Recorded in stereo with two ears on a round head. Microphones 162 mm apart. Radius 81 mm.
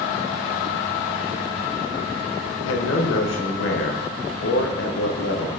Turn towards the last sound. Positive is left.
turn(degrees=75)  # may be behind; listen again after turning